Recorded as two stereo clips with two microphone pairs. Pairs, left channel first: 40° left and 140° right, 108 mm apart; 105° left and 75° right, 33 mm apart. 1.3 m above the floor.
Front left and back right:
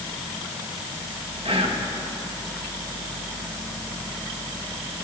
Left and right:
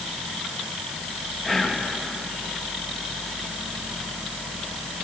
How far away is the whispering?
About 1.7 m.